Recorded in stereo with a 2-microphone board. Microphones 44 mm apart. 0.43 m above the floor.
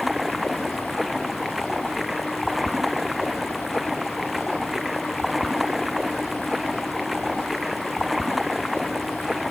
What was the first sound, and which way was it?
Running water, 5° right (ahead or behind).